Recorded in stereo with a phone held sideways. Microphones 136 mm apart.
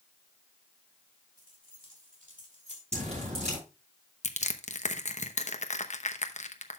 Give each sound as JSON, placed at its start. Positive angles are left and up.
{"t": 1.4, "sound": "keys jangling", "side_deg": -85, "distance_m": 3.5}
{"t": 2.9, "sound": "dripping", "side_deg": -55, "distance_m": 7.0}
{"t": 4.2, "sound": "crushing", "side_deg": 60, "distance_m": 0.9}